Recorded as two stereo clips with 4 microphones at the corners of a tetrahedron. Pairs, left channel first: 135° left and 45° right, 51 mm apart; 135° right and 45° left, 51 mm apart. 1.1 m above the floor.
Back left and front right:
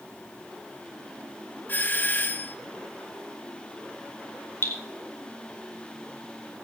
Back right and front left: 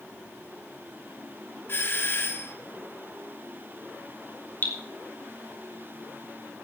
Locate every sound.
1.7 s a doorbell: 175° right, 1.3 m
4.6 s dripping: straight behind, 3 m